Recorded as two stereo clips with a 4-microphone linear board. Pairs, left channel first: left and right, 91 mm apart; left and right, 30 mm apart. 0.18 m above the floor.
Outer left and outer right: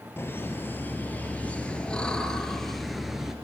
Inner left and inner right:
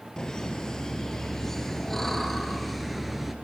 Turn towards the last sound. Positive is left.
turn(degrees=-5)  # may be behind; listen again after turning